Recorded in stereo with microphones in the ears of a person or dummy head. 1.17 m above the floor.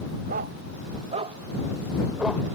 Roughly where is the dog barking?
Right.